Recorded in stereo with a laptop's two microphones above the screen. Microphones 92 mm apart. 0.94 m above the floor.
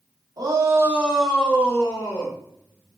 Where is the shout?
45° right (ahead or behind), 0.9 m; by 2.4 s 35° left (ahead or behind), 1.7 m.